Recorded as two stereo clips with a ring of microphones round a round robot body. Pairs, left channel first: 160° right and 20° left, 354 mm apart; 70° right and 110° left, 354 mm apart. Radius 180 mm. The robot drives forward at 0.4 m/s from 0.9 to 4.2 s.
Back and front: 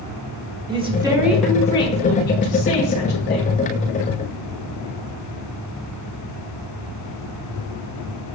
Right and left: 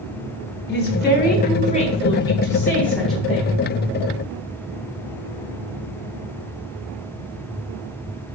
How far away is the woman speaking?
About 0.8 m.